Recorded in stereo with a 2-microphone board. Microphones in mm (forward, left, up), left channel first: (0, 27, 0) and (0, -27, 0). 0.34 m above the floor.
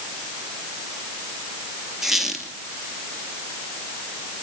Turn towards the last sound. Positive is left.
turn(degrees=-5)  # may be behind; listen again after turning